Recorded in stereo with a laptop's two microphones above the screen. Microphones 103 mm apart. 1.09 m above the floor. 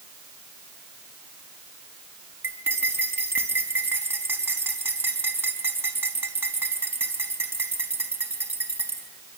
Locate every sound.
2.4 s cutlery clinking: 20° right (ahead or behind), 5 m